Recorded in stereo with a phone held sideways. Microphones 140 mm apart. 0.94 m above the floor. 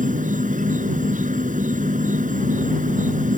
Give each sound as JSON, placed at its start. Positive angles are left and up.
{"t": 0.0, "sound": "an insect", "side_deg": -65}